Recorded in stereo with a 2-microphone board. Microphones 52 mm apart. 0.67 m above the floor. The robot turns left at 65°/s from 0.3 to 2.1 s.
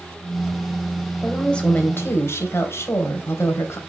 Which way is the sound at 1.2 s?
Straight behind.